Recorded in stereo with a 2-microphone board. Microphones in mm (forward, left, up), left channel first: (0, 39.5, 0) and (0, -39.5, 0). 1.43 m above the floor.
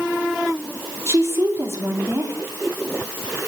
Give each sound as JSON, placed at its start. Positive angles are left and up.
{"t": 1.1, "sound": "a woman speaking", "side_deg": -35, "distance_m": 4.5}